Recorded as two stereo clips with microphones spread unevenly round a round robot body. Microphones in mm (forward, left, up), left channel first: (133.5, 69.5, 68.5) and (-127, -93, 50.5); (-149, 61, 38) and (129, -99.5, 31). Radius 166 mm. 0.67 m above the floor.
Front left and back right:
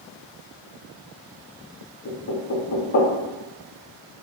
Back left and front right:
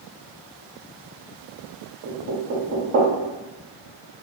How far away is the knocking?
About 0.7 m.